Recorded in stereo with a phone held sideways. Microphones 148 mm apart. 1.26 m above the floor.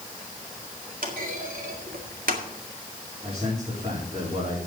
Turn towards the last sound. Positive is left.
turn(degrees=-40)  # may be behind; listen again after turning